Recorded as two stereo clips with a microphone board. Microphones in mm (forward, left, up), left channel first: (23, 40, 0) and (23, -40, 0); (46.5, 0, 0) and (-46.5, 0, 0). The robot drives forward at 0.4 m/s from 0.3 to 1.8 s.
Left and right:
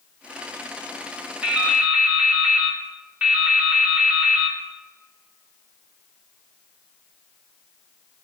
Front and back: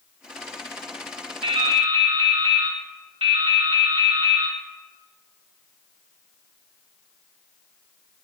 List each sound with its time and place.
1.4 s dripping: 165° right, 2.5 m